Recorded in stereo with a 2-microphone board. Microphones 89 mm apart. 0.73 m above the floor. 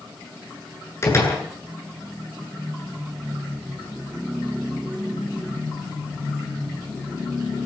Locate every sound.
1.0 s a door slam: 30° left (ahead or behind), 9 m